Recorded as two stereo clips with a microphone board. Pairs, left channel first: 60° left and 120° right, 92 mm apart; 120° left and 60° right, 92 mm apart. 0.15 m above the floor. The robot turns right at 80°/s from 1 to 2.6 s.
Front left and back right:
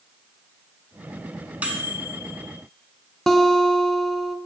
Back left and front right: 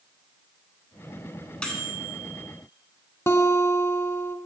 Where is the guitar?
145° left, 0.5 m.